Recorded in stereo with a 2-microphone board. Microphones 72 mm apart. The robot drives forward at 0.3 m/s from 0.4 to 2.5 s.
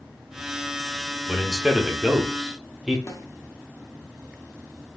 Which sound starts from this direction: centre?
A man speaking, at 1.3 s.